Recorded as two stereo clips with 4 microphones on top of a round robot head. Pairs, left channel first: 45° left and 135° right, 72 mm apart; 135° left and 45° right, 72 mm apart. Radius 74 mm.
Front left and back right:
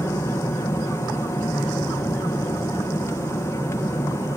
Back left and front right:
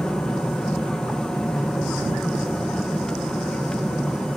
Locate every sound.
0.0 s an aircraft: 60° left